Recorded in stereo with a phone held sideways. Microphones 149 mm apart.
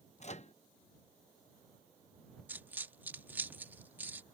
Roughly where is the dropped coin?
Centre.